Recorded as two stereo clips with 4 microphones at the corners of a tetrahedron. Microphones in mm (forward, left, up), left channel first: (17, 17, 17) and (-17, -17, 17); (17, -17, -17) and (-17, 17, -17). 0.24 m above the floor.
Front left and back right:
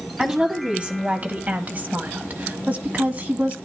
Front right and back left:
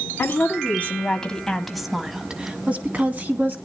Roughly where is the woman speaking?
Ahead right.